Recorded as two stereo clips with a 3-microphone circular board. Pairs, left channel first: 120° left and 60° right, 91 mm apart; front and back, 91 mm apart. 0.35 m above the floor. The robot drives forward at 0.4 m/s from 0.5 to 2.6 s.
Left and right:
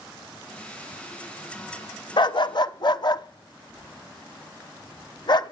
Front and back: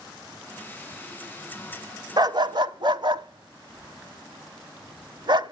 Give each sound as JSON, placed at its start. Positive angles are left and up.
{"t": 2.2, "sound": "a dog barking", "azimuth_deg": 145, "distance_m": 0.6}